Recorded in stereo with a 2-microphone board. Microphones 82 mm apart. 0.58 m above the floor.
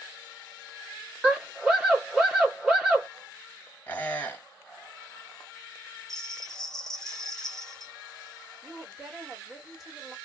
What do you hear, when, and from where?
1.2 s a scream: 10° right (ahead or behind), 1.3 m
3.9 s a squeak: 20° left (ahead or behind), 1.0 m
6.1 s a bell: 5° left (ahead or behind), 0.8 m
8.6 s a woman speaking: centre (ahead or behind), 1.6 m